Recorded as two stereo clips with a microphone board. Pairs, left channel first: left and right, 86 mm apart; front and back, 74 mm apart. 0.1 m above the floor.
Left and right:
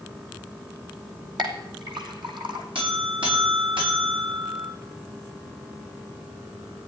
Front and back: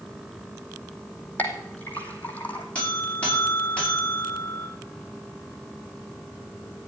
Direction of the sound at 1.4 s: 70° right.